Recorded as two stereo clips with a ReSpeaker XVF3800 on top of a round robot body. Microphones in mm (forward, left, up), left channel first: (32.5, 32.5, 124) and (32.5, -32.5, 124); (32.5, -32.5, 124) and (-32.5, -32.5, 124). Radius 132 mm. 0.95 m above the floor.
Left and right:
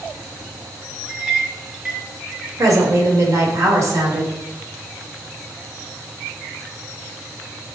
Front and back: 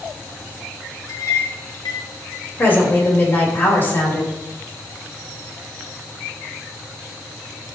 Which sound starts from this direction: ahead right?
A woman speaking, at 2.6 s.